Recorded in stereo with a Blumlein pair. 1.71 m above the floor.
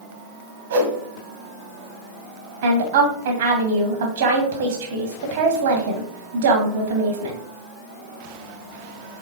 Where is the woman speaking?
60° right, 1.1 m.